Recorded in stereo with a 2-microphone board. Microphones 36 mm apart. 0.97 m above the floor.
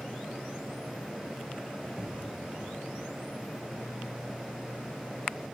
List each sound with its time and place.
2.0 s an explosion: 20° right (ahead or behind), 3 m